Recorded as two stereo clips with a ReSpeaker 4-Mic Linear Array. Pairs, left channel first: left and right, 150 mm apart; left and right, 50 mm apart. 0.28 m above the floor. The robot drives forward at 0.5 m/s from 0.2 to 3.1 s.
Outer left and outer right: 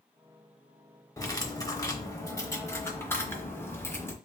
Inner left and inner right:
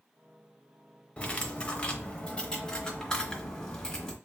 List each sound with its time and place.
1.2 s cutlery clinking: 25° left (ahead or behind), 0.8 m; by 4.2 s 15° left (ahead or behind), 1.1 m